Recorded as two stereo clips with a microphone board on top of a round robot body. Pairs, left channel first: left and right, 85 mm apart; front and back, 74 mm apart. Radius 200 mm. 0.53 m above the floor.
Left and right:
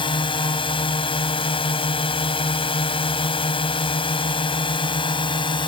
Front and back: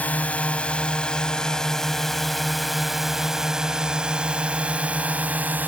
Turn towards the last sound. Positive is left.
turn(degrees=115)